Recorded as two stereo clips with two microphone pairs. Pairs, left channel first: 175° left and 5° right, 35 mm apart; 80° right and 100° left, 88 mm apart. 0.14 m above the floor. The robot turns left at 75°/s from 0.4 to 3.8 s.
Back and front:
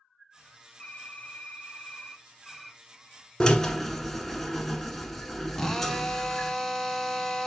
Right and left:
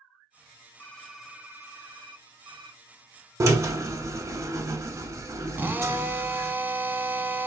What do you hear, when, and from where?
0.8 s typing on a keyboard: 145° right, 0.6 m; by 2.8 s 65° left, 0.6 m
3.4 s a drill: 115° left, 0.6 m; by 6.5 s 85° left, 0.6 m
5.5 s a drill: 105° left, 0.5 m